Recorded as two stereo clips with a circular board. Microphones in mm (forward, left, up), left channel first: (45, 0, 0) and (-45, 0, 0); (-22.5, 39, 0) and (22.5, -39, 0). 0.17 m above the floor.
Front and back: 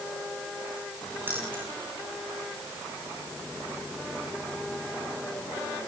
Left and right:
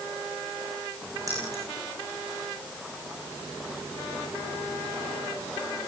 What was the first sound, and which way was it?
Keys jangling, 110° right.